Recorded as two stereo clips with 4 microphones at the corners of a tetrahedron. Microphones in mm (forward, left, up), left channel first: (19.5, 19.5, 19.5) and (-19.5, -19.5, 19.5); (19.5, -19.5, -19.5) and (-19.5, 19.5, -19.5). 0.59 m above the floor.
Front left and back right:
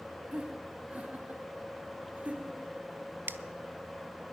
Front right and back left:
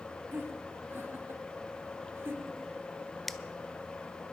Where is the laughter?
165° left, 1.3 m.